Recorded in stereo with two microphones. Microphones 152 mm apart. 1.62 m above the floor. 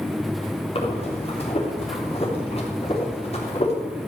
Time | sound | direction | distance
0.8 | breathing | 45° left (ahead or behind) | 3.5 m